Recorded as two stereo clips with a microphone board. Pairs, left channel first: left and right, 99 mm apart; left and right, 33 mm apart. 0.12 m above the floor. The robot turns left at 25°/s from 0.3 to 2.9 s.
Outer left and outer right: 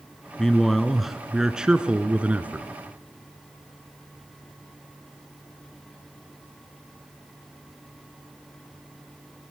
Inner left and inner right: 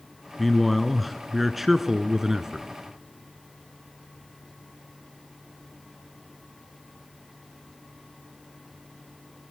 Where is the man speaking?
5° left (ahead or behind), 1.1 m; by 2.7 s 15° right (ahead or behind), 1.1 m.